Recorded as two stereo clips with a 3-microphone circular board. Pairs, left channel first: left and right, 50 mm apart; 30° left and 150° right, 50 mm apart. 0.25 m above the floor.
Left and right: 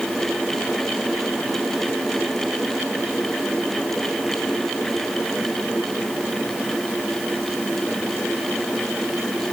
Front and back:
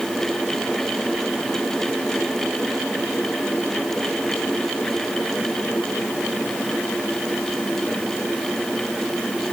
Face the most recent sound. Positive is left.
No sound to turn to.